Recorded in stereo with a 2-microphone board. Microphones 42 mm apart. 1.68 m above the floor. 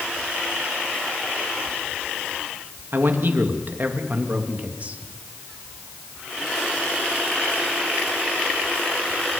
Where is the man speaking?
60° right (ahead or behind), 3 m; by 5.0 s 35° right (ahead or behind), 3 m.